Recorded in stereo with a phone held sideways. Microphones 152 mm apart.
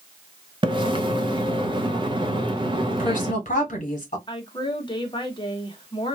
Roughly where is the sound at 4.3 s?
Left.